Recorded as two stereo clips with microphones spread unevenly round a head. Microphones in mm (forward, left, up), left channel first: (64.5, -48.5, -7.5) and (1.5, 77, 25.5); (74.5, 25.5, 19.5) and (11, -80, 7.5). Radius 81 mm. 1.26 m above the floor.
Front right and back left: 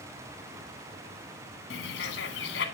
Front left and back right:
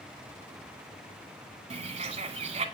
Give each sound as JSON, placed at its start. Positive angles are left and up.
{"t": 1.7, "sound": "a bird", "azimuth_deg": -80, "distance_m": 1.7}